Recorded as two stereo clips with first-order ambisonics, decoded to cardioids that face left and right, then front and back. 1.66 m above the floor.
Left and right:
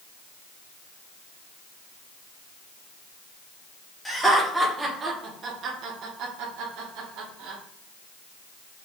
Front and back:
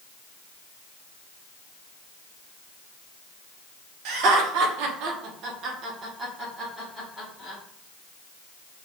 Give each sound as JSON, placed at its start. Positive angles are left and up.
{"t": 4.0, "sound": "laughter", "azimuth_deg": 175, "distance_m": 1.1}